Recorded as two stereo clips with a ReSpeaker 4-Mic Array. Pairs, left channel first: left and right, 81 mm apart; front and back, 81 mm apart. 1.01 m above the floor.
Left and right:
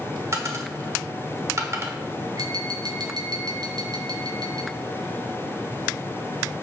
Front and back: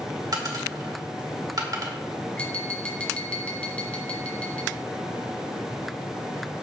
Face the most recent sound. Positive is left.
turn(degrees=-75)